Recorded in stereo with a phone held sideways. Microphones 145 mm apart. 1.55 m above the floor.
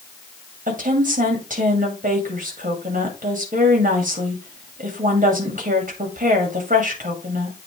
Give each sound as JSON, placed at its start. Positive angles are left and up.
{"t": 0.7, "sound": "a woman speaking", "side_deg": -65, "distance_m": 2.0}